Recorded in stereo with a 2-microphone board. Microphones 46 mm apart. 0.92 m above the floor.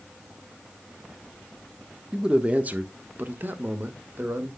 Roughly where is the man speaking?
Centre.